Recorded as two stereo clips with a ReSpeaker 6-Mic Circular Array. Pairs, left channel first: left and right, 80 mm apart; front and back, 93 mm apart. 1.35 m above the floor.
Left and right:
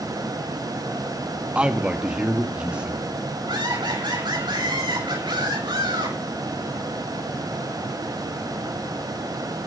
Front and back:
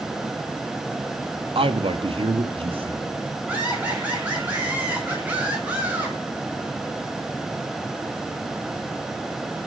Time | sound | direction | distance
1.6 | a man speaking | 165° right | 1.8 m
3.5 | laughter | 105° right | 10 m